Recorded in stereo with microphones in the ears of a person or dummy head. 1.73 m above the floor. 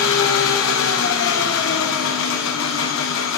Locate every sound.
0.0 s an engine running: 75° left (ahead or behind), 2.5 m